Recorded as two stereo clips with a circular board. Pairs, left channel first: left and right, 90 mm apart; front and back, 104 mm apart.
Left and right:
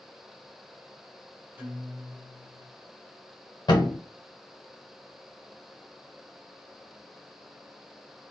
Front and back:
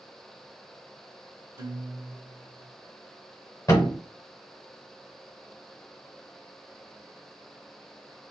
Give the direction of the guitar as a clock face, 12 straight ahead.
5 o'clock.